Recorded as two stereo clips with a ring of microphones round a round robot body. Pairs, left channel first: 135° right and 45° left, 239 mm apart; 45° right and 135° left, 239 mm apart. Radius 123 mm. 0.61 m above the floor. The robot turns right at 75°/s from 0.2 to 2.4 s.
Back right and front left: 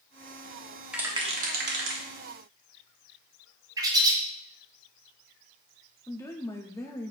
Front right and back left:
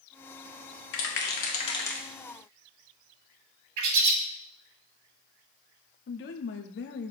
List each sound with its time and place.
0.9 s a rattle: 40° right, 1.5 m; by 2.0 s 45° left, 1.5 m
3.8 s a bird: 120° left, 1.2 m
6.1 s a woman speaking: 60° right, 0.9 m